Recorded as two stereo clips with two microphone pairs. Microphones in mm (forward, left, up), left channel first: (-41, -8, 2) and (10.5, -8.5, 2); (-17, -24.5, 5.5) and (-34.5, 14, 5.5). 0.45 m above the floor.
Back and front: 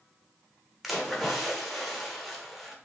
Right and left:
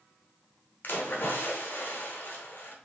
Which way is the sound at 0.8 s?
90° right.